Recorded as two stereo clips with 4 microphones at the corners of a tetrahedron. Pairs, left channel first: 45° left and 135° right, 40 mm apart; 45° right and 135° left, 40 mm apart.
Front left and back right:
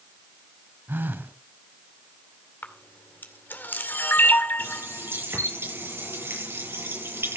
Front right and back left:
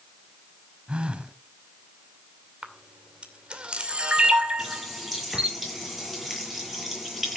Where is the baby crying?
No baby crying in this recording.